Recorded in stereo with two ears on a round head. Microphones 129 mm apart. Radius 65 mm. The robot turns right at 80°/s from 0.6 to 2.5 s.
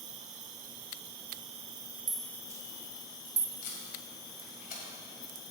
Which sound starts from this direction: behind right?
An insect, at 0.0 s.